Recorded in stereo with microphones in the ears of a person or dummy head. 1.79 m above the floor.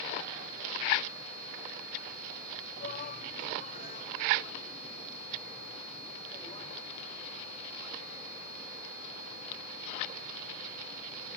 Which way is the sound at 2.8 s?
45° left (ahead or behind).